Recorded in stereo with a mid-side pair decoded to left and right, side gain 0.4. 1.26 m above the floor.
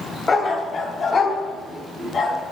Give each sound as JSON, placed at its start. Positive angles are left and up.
{"t": 0.3, "sound": "a dog barking", "azimuth_deg": 45, "distance_m": 2.5}